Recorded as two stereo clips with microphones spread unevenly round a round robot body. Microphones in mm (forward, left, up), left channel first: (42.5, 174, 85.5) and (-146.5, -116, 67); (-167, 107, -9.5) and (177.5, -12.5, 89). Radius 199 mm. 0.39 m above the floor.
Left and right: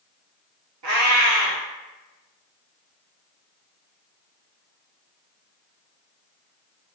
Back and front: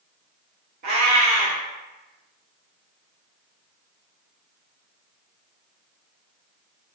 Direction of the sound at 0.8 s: 75° right.